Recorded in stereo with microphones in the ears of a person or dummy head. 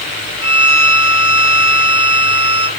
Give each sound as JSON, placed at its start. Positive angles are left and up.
{"t": 0.4, "sound": "a violin", "side_deg": -70, "distance_m": 1.9}